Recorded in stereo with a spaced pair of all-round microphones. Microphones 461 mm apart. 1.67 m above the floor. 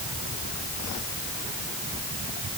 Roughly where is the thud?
No thud in this recording.